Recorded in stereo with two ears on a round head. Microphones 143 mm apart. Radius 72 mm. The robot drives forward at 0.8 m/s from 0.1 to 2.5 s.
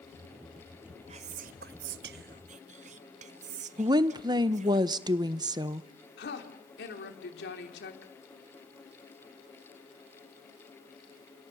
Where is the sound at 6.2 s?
75° left (ahead or behind), 3.5 m.